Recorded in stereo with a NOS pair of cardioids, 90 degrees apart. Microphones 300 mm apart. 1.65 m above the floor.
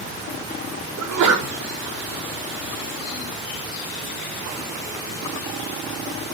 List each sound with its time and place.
1.0 s a sneeze: 70° right, 4 m